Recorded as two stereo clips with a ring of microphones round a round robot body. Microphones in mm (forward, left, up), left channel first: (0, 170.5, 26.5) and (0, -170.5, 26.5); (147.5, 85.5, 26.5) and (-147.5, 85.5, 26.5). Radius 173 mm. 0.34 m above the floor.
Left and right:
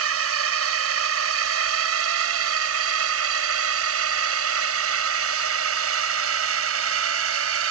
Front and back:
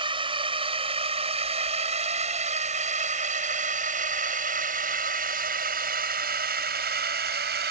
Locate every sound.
0.0 s a drone: 110° right; by 7.7 s 130° right